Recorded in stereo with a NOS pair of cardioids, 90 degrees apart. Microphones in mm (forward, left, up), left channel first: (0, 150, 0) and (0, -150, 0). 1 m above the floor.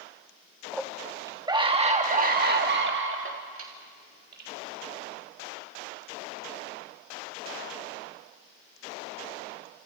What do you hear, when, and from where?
0.7 s a scream: straight ahead, 1.5 m; by 4.5 s 55° right, 2 m